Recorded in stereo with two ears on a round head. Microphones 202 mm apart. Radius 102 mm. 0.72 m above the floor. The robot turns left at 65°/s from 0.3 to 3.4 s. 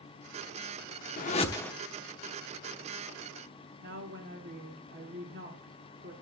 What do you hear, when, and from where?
1.2 s a whoosh: 40° left, 1.0 m; by 1.7 s 5° left, 1.0 m
3.8 s a woman speaking: 50° right (ahead or behind), 1.9 m